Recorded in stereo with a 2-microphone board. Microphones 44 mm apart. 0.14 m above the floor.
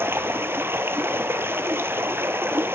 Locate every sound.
0.0 s running water: 65° right (ahead or behind), 0.9 m